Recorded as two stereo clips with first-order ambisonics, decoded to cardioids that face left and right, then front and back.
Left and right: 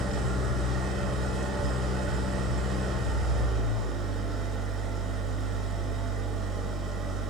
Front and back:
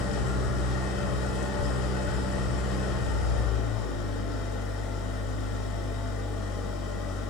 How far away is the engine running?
About 4 m.